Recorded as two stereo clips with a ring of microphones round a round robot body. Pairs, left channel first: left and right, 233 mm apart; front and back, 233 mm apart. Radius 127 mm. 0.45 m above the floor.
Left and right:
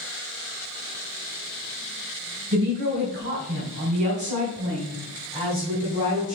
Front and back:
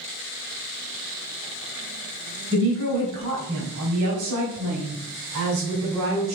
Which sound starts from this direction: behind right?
A woman speaking, at 2.5 s.